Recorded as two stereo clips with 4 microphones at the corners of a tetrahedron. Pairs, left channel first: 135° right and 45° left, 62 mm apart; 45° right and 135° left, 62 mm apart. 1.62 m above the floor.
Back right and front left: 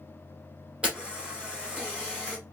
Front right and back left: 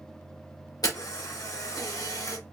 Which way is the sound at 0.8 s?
30° right.